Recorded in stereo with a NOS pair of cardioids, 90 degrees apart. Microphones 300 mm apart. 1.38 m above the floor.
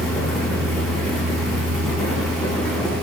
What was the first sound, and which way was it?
A fan, straight ahead.